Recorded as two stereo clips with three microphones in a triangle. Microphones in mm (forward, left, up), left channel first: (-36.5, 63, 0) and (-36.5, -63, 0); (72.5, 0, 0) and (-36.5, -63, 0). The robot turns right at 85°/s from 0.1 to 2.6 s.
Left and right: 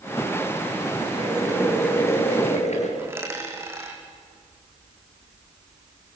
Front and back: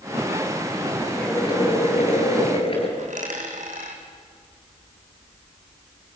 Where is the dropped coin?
160° right, 3 m.